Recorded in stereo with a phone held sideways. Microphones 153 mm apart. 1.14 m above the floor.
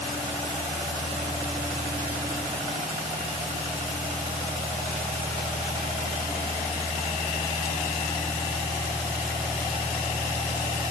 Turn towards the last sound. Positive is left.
No sound to turn to.